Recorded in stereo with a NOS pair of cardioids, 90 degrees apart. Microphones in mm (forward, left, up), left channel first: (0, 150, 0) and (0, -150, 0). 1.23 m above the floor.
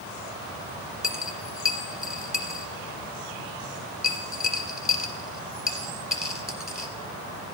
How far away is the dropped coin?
About 2 m.